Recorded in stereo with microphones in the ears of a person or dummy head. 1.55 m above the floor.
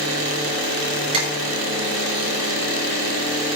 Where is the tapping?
30° right (ahead or behind), 6.5 m.